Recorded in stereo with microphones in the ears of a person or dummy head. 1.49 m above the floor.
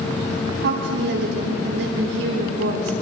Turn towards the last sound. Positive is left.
turn(degrees=-75)  # may be behind; listen again after turning